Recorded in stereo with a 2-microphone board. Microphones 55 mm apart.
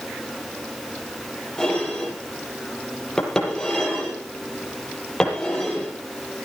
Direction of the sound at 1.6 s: 10° left (ahead or behind).